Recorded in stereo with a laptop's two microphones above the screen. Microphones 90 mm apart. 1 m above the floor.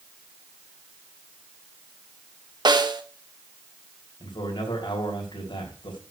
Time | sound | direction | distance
2.6 | a snare drum | 50° right (ahead or behind) | 1.0 m
4.2 | a man speaking | 60° left (ahead or behind) | 3 m